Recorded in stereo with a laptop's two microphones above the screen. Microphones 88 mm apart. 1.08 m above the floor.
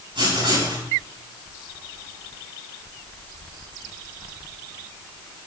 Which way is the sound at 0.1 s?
75° right (ahead or behind).